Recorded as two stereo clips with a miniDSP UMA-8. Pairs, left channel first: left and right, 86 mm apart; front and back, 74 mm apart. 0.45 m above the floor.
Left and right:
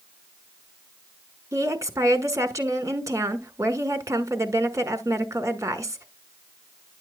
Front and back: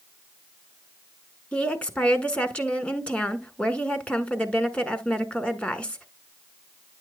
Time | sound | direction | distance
1.5 | a woman speaking | 65° right | 1.5 m